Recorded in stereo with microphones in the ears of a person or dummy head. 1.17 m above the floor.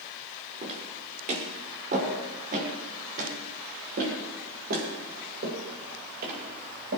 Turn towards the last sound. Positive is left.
turn(degrees=-55)  # may be behind; listen again after turning